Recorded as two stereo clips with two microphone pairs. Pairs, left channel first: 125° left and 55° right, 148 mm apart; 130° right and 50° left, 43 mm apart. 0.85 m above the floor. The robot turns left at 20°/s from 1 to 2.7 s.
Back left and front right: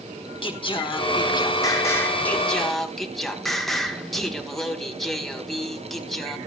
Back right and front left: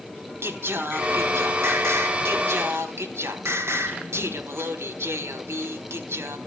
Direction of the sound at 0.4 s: 70° left.